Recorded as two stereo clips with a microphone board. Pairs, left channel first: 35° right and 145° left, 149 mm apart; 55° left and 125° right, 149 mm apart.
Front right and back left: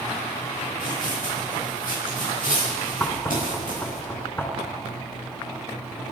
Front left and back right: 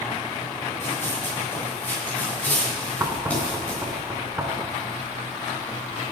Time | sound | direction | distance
0.8 | running footsteps | 15° right | 7.5 m
3.0 | knocking | 85° right | 1.4 m